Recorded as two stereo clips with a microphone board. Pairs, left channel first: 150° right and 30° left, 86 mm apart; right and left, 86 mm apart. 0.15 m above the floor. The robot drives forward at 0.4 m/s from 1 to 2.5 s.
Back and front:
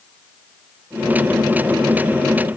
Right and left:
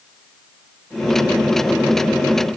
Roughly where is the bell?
No bell in this recording.